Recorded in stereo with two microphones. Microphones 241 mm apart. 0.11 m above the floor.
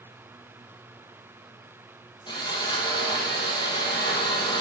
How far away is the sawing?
About 3.5 m.